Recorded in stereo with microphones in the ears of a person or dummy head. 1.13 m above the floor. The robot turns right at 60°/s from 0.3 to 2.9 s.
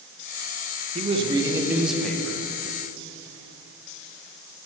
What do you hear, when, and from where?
0.9 s a man speaking: 55° right, 0.6 m; by 2.4 s 30° left, 0.6 m